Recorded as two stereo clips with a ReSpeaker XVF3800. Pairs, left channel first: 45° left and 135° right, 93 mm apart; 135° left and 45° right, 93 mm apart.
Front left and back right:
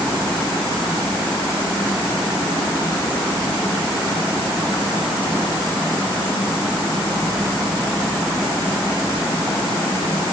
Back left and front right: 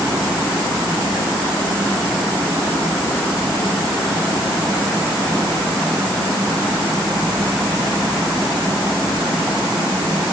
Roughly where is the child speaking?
No child speaking in this recording.